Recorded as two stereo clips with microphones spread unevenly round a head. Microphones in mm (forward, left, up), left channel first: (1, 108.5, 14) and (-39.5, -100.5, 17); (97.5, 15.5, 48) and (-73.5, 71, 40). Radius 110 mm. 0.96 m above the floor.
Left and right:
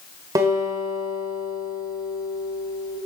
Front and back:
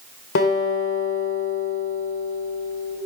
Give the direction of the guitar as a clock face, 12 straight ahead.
1 o'clock.